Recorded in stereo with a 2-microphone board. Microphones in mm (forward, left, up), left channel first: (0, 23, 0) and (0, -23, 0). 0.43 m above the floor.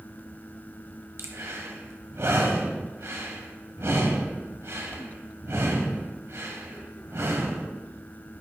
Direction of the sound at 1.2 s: 70° right (ahead or behind).